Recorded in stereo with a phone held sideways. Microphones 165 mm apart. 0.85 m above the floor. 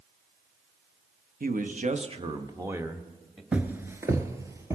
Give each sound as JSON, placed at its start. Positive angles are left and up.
{"t": 1.4, "sound": "a man speaking", "side_deg": -60, "distance_m": 0.9}
{"t": 3.5, "sound": "footsteps", "side_deg": -10, "distance_m": 0.8}